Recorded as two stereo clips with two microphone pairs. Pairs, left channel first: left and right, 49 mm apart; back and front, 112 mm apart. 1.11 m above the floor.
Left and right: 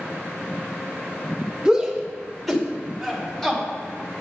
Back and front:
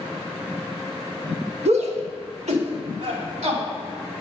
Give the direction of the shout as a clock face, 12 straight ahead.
12 o'clock.